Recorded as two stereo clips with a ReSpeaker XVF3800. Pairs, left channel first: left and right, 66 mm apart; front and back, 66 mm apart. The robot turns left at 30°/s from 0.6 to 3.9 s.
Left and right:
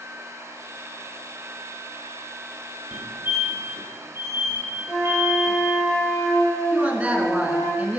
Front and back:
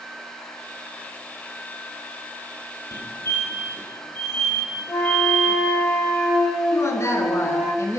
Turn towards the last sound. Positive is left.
turn(degrees=-25)